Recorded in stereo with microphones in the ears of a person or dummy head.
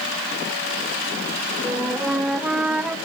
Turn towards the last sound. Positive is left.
turn(degrees=-5)  # may be behind; listen again after turning